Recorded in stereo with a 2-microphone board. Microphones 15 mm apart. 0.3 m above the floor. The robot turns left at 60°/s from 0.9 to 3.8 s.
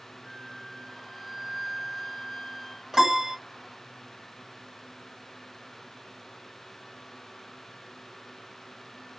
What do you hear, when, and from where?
0.2 s a flute: centre (ahead or behind), 0.7 m; by 2.8 s 15° right (ahead or behind), 0.7 m
2.9 s a piano: 35° right (ahead or behind), 1.7 m; by 3.4 s 40° right (ahead or behind), 1.7 m